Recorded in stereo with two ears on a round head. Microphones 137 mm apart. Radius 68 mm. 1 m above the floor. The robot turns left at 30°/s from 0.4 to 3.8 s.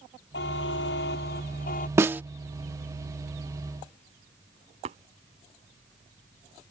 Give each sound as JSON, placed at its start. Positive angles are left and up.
{"t": 0.3, "sound": "a buzzer", "azimuth_deg": 100}
{"t": 2.0, "sound": "a snare drum", "side_deg": -20}
{"t": 4.8, "sound": "tapping", "side_deg": -45}